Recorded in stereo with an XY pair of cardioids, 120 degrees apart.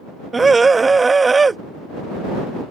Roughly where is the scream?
Ahead.